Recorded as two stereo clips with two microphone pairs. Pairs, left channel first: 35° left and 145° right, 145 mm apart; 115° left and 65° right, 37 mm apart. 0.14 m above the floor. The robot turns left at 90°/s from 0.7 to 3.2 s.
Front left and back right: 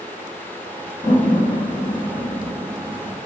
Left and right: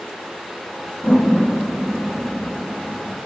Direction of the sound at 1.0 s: 75° left.